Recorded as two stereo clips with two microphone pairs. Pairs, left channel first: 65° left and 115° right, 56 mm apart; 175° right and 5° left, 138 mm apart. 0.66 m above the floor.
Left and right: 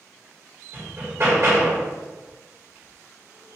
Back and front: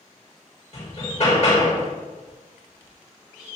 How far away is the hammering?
About 1.6 m.